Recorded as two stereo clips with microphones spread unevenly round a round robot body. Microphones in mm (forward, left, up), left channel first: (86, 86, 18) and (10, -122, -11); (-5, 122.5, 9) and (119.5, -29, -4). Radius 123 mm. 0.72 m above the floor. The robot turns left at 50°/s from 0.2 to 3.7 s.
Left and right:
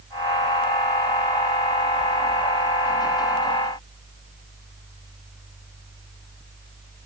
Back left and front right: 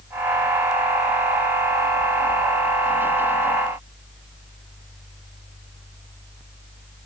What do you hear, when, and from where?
Only background noise.